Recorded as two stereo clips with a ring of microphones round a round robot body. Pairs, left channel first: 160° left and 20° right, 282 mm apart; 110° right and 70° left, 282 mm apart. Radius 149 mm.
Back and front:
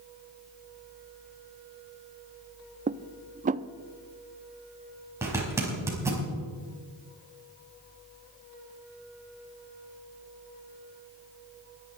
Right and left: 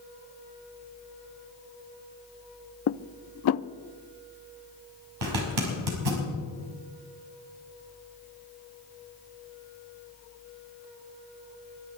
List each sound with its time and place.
2.9 s dishes clattering: 85° right, 0.5 m
5.2 s a zipper: 60° left, 5 m